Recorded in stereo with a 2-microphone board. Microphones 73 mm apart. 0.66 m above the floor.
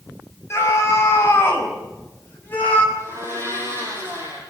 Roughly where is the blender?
Right.